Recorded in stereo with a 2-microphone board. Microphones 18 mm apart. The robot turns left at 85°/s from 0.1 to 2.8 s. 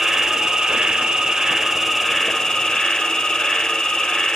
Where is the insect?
25° right, 1.1 m; by 4.3 s 110° left, 1.1 m.